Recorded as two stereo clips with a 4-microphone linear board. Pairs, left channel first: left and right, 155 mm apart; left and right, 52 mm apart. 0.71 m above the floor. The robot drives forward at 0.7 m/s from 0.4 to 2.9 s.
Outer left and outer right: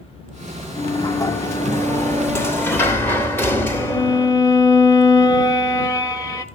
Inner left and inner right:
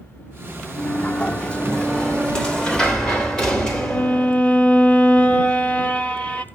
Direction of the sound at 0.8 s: 30° left (ahead or behind).